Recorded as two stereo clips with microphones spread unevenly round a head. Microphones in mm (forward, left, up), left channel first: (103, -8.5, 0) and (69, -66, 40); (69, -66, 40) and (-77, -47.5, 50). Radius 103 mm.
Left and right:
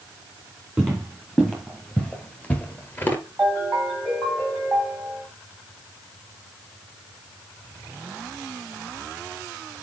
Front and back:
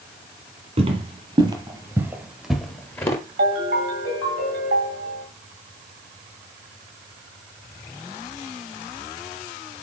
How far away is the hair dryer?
I don't hear a hair dryer.